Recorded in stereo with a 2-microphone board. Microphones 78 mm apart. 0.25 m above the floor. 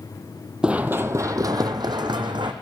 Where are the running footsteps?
10° right (ahead or behind), 0.5 m; by 2.5 s 75° right (ahead or behind), 1.1 m.